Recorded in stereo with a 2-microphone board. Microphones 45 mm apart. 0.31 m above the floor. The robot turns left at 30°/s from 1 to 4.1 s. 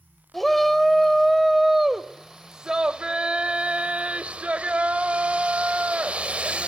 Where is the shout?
5° left (ahead or behind), 1.1 m; by 6.7 s 30° right (ahead or behind), 1.1 m.